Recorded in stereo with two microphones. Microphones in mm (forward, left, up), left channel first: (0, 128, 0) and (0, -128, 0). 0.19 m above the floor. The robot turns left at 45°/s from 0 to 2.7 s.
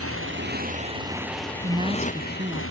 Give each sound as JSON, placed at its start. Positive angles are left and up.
{"t": 0.0, "sound": "a motorcycle", "azimuth_deg": -115}
{"t": 1.6, "sound": "a woman speaking", "side_deg": -20}